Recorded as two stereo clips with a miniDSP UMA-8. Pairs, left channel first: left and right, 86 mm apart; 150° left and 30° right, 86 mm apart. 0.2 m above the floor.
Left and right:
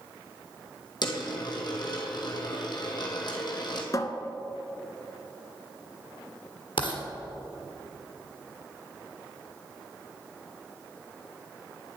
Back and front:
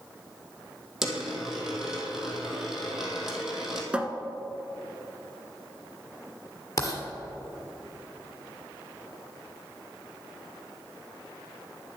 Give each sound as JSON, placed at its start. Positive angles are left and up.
{"t": 1.0, "sound": "a dropped coin", "azimuth_deg": 55, "distance_m": 1.8}
{"t": 3.9, "sound": "a cupboard door", "azimuth_deg": 45, "distance_m": 0.8}
{"t": 6.8, "sound": "writing", "azimuth_deg": 100, "distance_m": 1.7}